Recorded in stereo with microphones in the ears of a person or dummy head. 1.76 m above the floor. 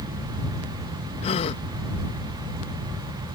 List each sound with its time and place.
1.2 s a gasp: 35° left (ahead or behind)